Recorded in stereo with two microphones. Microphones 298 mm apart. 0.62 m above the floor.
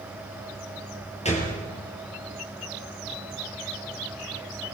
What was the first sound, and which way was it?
A gunshot, 20° left (ahead or behind).